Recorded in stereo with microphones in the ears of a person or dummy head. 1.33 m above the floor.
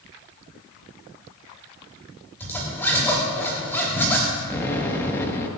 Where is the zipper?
10° left (ahead or behind), 3.5 m.